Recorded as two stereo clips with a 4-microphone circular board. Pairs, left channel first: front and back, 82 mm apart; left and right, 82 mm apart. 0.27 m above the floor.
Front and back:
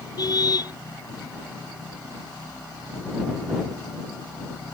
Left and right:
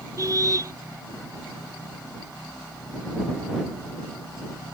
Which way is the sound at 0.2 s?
40° right.